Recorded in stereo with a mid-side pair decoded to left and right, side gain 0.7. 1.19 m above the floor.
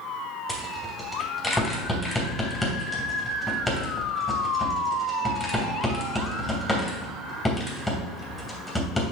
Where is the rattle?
10° left, 3 m.